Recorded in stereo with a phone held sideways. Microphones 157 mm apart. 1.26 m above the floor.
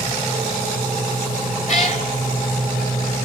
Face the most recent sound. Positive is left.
turn(degrees=45)  # may be behind; listen again after turning